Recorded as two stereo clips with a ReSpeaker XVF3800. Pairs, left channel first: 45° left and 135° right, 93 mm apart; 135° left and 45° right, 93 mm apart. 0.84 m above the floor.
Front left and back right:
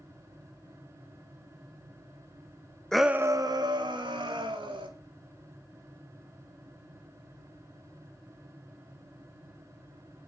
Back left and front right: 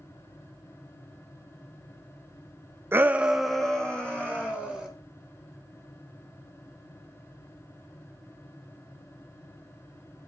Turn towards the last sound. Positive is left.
turn(degrees=-150)